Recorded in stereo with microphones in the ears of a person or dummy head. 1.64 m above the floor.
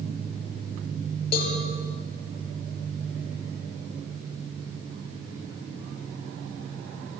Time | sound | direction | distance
1.3 | a cowbell | 35° left (ahead or behind) | 5 m